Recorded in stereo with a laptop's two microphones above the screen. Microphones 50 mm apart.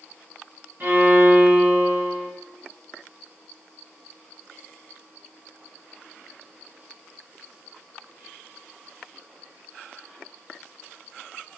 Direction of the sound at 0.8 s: 40° right (ahead or behind).